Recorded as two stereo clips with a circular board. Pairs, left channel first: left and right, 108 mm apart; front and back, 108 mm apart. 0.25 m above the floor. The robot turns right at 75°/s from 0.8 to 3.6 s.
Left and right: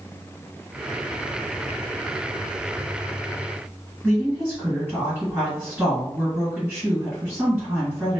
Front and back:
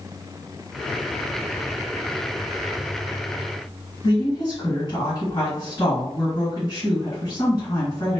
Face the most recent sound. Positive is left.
turn(degrees=-10)